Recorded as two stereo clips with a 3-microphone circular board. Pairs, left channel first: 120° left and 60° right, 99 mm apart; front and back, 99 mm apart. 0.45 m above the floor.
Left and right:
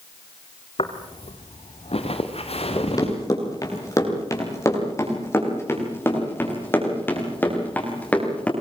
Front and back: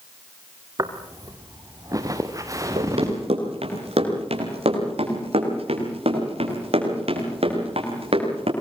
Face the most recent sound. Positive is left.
turn(degrees=-165)